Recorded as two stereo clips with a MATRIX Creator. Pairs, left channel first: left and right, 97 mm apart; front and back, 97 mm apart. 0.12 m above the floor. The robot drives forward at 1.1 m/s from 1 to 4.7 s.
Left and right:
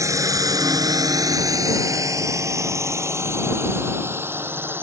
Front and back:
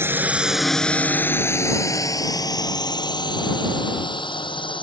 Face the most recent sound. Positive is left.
turn(degrees=-25)